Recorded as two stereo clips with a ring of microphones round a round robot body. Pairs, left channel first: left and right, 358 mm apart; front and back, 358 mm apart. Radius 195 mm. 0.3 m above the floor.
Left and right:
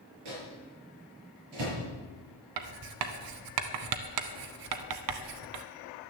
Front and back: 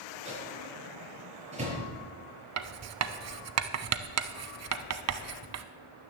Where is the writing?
130° right, 0.8 m.